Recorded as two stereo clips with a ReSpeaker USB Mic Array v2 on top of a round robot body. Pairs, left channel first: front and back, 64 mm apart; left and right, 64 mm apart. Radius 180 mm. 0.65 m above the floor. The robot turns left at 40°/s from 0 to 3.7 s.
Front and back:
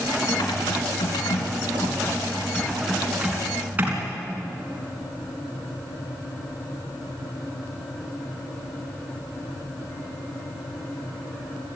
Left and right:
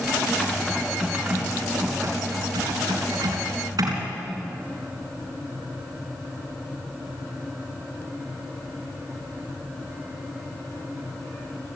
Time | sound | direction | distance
0.3 | typing on a keyboard | 25° left | 4 m